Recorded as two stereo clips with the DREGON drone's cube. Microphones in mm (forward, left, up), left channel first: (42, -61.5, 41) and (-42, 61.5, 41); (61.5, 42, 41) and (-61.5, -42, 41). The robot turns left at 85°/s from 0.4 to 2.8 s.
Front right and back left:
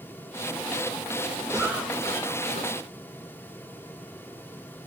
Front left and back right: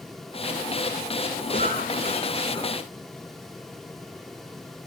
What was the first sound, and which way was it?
A cough, 65° left.